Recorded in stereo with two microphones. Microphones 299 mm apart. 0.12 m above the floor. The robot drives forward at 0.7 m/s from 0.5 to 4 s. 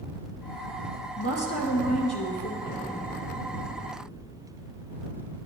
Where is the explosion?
50° left (ahead or behind), 4.5 m; by 4.9 s 60° left (ahead or behind), 4 m.